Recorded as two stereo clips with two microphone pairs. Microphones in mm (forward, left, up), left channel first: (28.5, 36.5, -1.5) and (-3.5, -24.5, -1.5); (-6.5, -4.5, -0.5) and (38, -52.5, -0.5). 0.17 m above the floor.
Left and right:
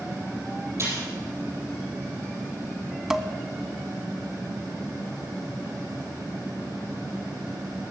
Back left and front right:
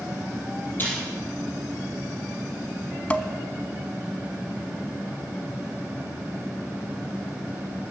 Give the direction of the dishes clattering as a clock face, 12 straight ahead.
6 o'clock.